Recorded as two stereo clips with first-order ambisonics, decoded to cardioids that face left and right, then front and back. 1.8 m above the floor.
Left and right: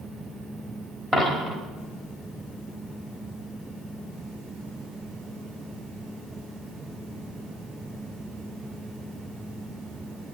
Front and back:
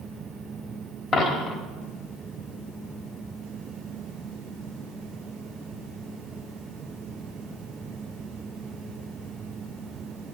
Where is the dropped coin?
25° right, 1.4 m.